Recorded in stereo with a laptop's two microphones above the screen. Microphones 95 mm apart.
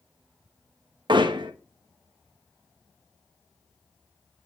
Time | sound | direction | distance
1.1 | hammering | 55° right (ahead or behind) | 1.2 m